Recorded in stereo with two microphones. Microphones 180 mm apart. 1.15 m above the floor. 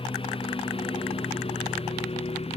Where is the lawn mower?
30° left (ahead or behind); by 2.6 s 35° left (ahead or behind).